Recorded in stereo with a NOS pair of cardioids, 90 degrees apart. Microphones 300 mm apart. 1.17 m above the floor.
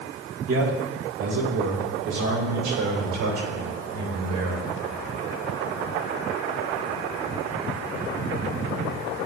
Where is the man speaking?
50° right, 2.5 m; by 4.7 s 80° right, 5 m.